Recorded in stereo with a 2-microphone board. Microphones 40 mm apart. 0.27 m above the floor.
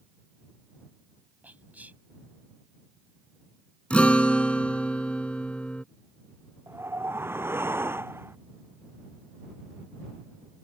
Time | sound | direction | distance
1.4 | whispering | 45° right (ahead or behind) | ?
3.9 | a guitar | 30° left (ahead or behind) | ?
6.7 | a whoosh | 80° right | ?